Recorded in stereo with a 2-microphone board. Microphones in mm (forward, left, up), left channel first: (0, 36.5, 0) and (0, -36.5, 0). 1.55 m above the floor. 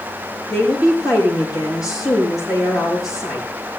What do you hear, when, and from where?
0.5 s a woman speaking: 45° left (ahead or behind), 7.5 m